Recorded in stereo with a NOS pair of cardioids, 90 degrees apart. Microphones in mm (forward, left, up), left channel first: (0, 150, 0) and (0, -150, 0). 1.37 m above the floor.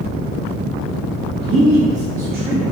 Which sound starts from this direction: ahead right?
A man speaking, at 1.4 s.